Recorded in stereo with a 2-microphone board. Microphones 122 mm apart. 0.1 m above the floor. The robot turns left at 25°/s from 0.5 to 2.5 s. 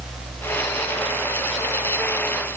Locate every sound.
Only background noise.